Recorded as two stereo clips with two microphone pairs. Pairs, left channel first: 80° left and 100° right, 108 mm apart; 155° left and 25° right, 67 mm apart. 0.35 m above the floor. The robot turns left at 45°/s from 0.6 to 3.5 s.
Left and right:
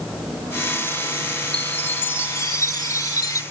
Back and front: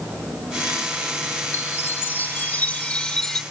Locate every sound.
1.5 s a chime: 155° left; by 3.4 s 70° left